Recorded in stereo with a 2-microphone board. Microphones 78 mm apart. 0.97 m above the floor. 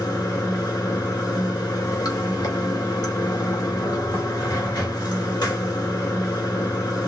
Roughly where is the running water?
Left.